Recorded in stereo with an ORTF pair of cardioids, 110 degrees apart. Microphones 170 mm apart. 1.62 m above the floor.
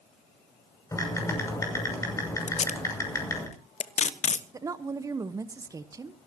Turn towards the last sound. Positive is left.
turn(degrees=-20)